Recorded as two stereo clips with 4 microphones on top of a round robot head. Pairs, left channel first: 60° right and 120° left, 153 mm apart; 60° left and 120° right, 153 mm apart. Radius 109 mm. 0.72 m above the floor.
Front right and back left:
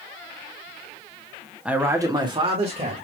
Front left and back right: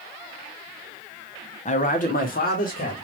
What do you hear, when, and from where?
1.6 s a man speaking: 40° left, 1.4 m; by 3.0 s 80° left, 2.5 m